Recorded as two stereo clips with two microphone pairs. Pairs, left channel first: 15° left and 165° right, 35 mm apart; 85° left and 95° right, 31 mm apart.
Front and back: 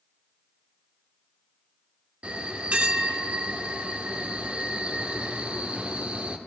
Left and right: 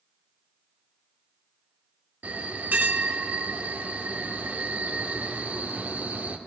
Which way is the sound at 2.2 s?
115° right.